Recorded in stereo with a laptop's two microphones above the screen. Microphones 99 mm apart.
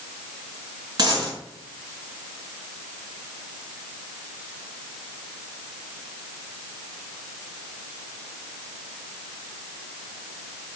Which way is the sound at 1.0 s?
50° right (ahead or behind).